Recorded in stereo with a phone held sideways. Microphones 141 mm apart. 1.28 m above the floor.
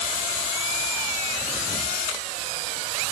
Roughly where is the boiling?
I don't hear boiling.